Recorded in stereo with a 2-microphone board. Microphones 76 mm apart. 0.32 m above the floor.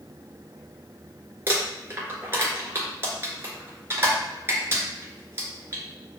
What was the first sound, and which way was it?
Crumpling, 30° right (ahead or behind).